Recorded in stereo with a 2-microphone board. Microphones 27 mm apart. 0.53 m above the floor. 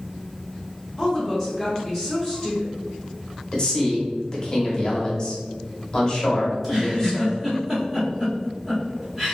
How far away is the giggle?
About 1.3 m.